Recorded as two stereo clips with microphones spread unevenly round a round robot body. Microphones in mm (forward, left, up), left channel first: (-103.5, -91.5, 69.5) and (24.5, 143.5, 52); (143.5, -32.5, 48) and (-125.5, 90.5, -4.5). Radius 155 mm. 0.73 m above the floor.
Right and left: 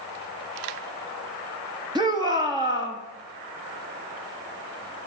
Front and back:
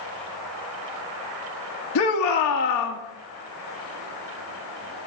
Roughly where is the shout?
Ahead.